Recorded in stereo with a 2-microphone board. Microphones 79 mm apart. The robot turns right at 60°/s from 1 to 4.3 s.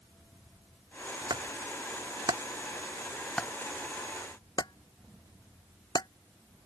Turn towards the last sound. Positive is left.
turn(degrees=60)  # may be behind; listen again after turning